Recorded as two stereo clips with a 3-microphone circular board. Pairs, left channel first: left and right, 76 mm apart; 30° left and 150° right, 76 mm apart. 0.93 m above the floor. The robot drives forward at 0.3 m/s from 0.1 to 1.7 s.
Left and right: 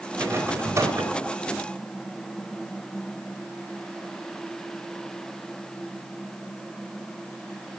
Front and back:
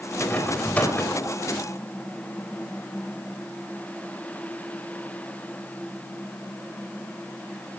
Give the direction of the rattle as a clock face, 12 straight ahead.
1 o'clock.